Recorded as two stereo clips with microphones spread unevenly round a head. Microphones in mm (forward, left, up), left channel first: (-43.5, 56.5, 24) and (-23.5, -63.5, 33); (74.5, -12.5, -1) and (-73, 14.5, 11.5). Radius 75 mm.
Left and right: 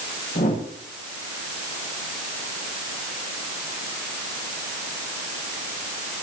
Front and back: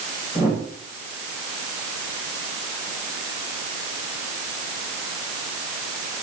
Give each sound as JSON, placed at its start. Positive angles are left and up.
{"t": 0.3, "sound": "a whoosh", "azimuth_deg": 95, "distance_m": 8.5}